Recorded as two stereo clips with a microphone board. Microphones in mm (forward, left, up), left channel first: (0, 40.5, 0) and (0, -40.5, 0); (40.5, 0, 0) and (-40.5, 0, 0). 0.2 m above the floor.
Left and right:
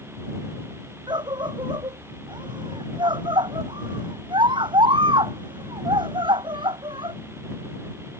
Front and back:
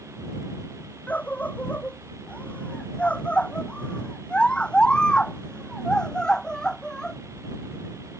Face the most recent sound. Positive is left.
turn(degrees=-85)